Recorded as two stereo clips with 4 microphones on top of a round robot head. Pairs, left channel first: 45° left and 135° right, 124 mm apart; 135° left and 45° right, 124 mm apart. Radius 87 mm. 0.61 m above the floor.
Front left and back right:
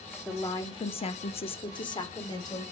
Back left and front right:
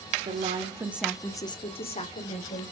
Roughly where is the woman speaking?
Ahead right.